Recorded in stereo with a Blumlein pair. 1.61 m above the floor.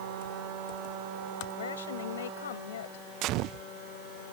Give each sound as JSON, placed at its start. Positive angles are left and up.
{"t": 1.5, "sound": "a woman speaking", "azimuth_deg": 65}
{"t": 3.2, "sound": "a gunshot", "azimuth_deg": -40}